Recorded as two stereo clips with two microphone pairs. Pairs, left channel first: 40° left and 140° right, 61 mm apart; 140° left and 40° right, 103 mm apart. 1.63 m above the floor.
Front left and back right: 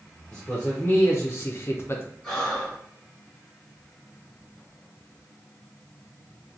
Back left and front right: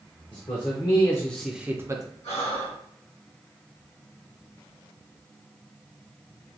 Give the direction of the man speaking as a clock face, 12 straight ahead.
8 o'clock.